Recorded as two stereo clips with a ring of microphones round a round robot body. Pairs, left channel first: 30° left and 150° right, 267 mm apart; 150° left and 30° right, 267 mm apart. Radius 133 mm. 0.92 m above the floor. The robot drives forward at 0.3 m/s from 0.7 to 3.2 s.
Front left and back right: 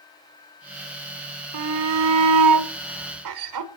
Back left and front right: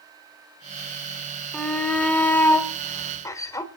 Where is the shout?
125° right, 2.5 m; by 3.7 s 130° right, 3 m.